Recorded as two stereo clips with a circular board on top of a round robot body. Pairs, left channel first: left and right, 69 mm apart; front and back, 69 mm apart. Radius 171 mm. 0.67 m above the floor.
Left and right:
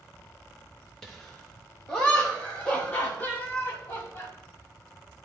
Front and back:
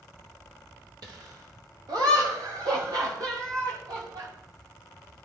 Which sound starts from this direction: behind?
Laughter, at 1.0 s.